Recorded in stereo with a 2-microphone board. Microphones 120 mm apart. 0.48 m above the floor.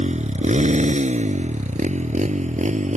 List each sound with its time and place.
0.0 s a motorcycle: 65° right (ahead or behind); by 3.0 s 70° right (ahead or behind)